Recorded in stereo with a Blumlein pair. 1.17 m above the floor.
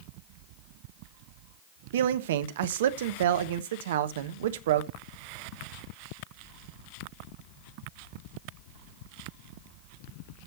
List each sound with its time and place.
1.9 s a man speaking: 60° right, 1.2 m